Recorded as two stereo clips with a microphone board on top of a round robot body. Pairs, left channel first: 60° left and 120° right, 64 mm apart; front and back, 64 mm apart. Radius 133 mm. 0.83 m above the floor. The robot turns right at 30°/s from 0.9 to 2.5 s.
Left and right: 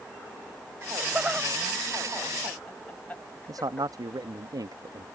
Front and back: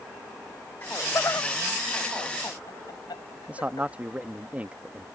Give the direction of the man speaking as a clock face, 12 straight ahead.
4 o'clock.